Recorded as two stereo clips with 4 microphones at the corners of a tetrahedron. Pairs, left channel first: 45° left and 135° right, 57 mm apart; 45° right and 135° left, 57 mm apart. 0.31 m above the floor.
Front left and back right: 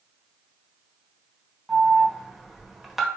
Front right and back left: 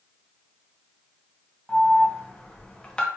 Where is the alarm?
60° right, 0.6 m.